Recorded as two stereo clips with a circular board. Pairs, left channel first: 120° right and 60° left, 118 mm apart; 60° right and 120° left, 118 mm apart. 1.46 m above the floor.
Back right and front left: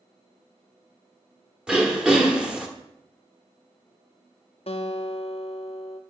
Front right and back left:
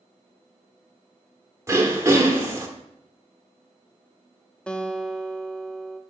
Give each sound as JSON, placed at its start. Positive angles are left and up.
{"t": 1.7, "sound": "throat clearing", "azimuth_deg": 130, "distance_m": 1.1}
{"t": 4.7, "sound": "a guitar", "azimuth_deg": -140, "distance_m": 0.6}